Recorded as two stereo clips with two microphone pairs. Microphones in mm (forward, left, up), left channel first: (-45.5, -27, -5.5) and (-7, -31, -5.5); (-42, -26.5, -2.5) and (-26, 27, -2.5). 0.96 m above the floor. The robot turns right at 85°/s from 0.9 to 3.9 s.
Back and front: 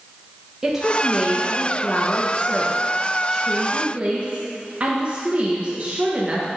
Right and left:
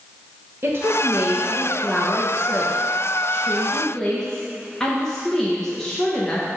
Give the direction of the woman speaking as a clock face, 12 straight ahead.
10 o'clock.